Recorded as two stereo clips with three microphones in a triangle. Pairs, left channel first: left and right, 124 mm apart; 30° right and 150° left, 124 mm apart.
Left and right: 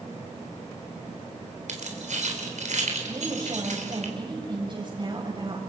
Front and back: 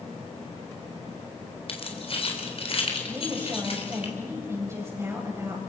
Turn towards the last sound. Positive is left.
turn(degrees=-140)